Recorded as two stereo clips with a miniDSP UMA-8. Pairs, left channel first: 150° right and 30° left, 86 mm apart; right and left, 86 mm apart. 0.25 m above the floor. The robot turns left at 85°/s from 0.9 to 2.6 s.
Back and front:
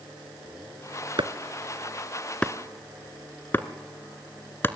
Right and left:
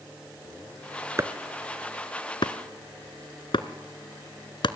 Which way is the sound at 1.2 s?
35° left.